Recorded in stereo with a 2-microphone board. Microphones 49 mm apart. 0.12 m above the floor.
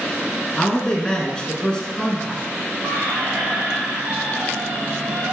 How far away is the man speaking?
About 1.0 m.